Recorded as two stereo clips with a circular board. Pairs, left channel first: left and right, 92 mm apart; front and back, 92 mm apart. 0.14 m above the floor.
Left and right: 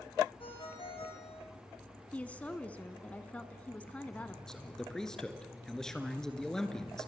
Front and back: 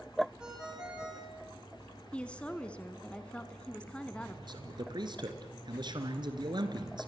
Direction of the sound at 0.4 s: 100° left.